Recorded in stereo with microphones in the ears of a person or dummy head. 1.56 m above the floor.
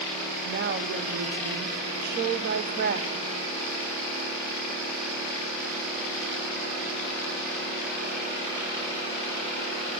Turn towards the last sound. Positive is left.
turn(degrees=-45)  # may be behind; listen again after turning